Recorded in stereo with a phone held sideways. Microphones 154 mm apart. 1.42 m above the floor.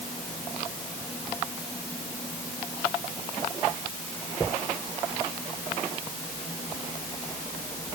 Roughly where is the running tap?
No running tap in this recording.